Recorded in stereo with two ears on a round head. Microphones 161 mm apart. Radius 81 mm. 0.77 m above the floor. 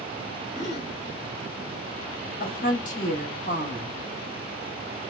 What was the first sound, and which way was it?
A gasp, 40° left (ahead or behind).